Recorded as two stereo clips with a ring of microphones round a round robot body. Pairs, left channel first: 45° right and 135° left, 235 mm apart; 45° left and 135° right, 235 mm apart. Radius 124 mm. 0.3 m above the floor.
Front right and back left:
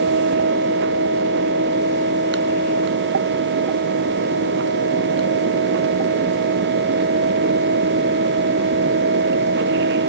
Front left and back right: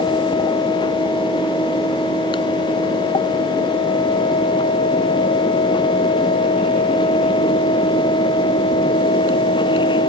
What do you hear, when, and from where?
Only background noise.